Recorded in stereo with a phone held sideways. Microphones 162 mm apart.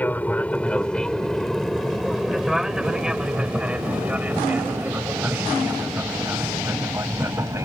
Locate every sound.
0.0 s an aircraft: 10° left (ahead or behind); by 7.7 s 20° right (ahead or behind)